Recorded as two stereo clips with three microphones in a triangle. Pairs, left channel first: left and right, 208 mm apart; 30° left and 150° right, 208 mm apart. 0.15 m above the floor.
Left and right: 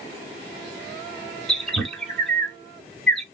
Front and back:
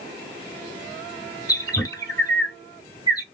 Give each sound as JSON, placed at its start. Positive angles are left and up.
{"t": 1.5, "sound": "a bird", "azimuth_deg": 5, "distance_m": 0.8}